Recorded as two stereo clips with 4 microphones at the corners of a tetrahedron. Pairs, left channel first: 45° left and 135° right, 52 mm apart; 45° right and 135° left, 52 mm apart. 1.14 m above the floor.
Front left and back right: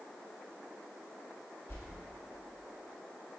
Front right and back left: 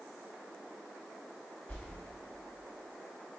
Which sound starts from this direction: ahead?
A whoosh, at 1.7 s.